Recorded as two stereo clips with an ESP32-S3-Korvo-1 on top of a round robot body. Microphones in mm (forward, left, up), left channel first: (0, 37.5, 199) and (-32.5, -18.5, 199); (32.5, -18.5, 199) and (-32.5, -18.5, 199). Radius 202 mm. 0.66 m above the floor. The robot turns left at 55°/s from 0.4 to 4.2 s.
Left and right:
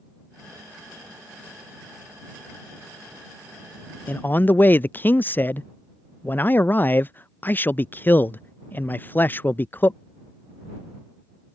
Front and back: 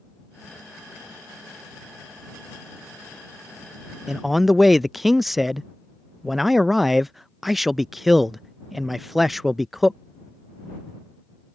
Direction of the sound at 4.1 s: 100° left.